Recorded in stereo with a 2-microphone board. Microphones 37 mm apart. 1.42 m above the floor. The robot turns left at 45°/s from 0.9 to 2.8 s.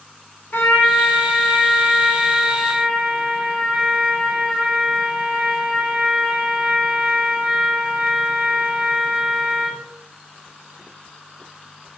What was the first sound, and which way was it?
A trumpet, 65° left.